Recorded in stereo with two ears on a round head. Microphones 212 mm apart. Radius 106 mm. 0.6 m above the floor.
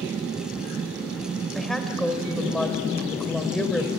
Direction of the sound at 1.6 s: Centre (ahead or behind).